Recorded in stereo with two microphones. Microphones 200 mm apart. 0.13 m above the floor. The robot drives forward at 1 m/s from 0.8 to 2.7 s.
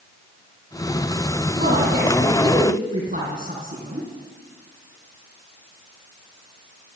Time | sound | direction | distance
1.6 | a woman speaking | 50° right (ahead or behind) | 5 m